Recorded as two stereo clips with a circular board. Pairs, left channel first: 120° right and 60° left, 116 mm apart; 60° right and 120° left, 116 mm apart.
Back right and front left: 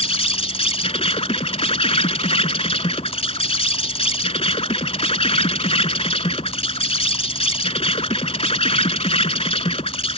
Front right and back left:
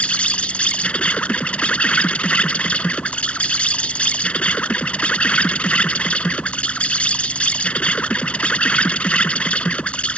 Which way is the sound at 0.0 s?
140° right.